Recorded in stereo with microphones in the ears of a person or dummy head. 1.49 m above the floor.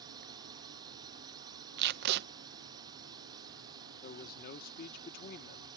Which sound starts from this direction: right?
Tape being pulled, at 1.8 s.